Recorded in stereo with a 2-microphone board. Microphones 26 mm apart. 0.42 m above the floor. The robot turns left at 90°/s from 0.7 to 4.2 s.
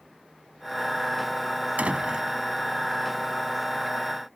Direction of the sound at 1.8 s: 110° right.